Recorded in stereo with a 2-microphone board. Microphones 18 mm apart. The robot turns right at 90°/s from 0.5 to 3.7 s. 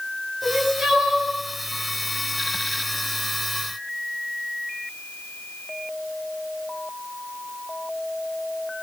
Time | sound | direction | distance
0.4 | crying | 135° right | 6.5 m